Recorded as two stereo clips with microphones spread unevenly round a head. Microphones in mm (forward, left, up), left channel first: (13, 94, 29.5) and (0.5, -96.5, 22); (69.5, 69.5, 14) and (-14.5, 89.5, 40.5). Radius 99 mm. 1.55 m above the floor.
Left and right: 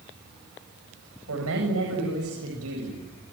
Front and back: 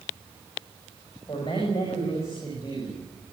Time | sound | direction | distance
1.3 | a man speaking | 80° right | 8.5 m